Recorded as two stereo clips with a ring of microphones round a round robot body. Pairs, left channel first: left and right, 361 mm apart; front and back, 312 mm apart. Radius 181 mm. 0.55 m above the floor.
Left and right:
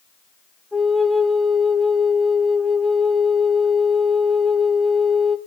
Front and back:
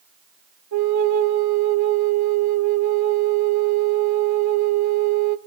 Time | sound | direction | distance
0.7 | a flute | straight behind | 0.9 m